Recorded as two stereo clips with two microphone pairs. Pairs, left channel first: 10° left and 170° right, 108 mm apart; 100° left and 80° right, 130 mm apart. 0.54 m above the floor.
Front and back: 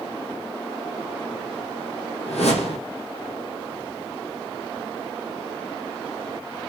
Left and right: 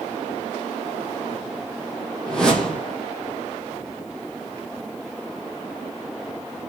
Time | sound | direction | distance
2.3 | a whoosh | 15° left | 4 m